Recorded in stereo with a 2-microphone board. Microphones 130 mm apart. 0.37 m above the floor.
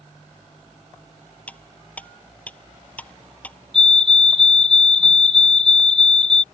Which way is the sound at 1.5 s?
10° left (ahead or behind).